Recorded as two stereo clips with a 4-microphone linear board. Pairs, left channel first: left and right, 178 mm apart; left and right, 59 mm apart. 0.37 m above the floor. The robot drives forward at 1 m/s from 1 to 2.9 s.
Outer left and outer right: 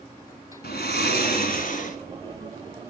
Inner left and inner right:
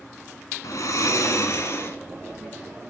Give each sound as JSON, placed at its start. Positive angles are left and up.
{"t": 0.6, "sound": "snoring", "side_deg": 80, "distance_m": 1.5}